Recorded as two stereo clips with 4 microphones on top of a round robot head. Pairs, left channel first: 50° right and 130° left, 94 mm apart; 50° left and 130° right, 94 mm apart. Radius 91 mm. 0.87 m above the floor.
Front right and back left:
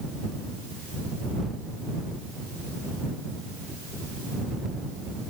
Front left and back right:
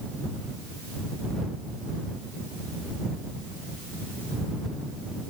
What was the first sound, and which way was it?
Only background noise.